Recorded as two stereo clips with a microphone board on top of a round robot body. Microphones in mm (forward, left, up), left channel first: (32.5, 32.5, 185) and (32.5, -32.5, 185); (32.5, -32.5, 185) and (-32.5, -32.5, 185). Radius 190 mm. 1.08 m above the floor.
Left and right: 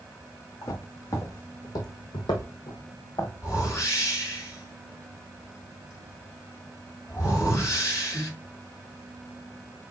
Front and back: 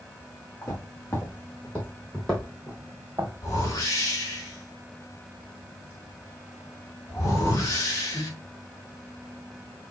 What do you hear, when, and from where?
0.6 s footsteps: 55° left, 4 m; by 3.3 s 135° left, 1.8 m
3.4 s a whoosh: 45° left, 4.5 m